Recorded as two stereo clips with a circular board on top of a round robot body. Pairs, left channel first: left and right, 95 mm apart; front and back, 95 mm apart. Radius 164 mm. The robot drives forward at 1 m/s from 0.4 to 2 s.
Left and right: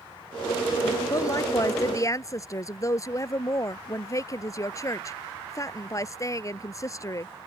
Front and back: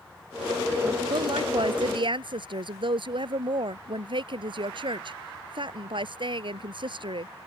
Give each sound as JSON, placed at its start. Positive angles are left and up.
{"t": 1.1, "sound": "a woman speaking", "azimuth_deg": 145}